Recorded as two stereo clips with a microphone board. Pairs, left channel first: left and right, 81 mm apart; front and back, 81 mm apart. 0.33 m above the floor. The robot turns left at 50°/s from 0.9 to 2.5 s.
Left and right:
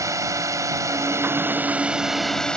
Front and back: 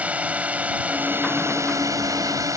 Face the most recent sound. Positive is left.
turn(degrees=165)